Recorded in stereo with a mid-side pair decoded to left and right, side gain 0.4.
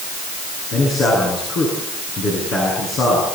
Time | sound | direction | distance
0.7 | a man speaking | 70° left | 9.5 m